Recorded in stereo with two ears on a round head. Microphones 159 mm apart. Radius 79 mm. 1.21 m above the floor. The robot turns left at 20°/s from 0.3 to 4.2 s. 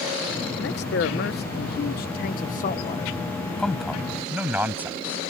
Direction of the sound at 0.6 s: 95° left.